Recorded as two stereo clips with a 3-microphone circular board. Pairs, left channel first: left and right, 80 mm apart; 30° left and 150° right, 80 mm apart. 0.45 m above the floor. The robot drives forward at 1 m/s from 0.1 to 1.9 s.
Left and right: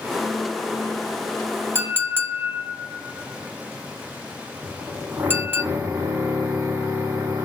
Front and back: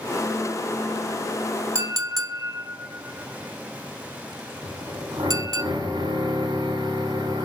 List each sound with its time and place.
1.8 s a clink: 135° right, 0.7 m; by 5.6 s 145° right, 0.8 m
4.6 s a drill: 150° right, 1.3 m